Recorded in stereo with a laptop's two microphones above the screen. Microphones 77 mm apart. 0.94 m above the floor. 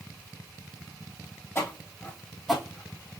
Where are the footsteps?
30° left (ahead or behind), 1.3 m; by 3.2 s 20° right (ahead or behind), 1.7 m.